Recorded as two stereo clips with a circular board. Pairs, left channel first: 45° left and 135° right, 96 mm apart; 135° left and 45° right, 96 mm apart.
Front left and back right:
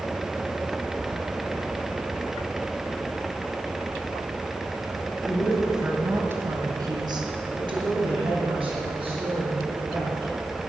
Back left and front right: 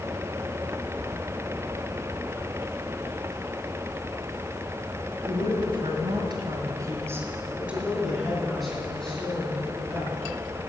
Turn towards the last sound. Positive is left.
turn(degrees=-150)